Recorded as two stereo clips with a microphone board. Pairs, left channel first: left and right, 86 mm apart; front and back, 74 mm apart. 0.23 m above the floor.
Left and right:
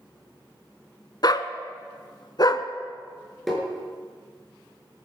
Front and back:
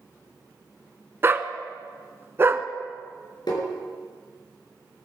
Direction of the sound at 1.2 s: 125° left.